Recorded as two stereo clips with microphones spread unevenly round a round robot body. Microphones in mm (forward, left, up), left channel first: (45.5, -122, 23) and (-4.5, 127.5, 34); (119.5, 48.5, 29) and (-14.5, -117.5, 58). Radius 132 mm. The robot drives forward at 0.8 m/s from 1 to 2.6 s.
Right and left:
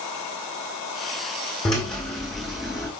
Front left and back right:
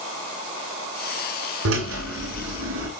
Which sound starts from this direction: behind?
A drill, at 1.6 s.